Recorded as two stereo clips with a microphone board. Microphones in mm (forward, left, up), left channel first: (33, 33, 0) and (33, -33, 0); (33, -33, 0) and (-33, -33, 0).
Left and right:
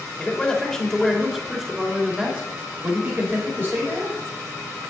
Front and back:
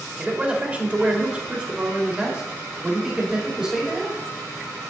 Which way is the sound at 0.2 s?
135° left.